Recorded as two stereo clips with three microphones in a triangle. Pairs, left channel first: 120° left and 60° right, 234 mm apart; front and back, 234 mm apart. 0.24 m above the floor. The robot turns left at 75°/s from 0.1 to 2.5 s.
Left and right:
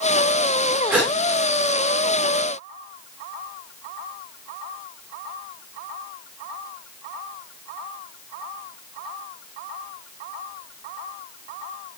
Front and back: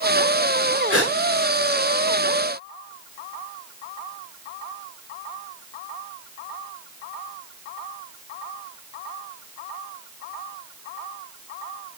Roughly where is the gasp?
Behind right.